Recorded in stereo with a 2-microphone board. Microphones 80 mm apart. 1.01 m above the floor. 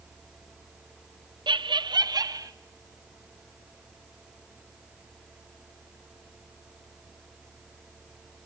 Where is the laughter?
75° right (ahead or behind), 0.6 m; by 2.5 s 50° right (ahead or behind), 1.6 m.